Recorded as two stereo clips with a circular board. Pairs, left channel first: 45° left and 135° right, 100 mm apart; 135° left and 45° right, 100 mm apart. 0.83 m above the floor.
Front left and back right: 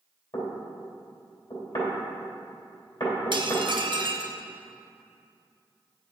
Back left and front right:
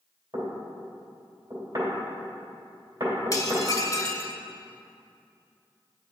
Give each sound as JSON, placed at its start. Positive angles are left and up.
{"t": 0.3, "sound": "knocking", "azimuth_deg": 5, "distance_m": 2.5}
{"t": 3.3, "sound": "dishes clattering", "azimuth_deg": -170, "distance_m": 0.8}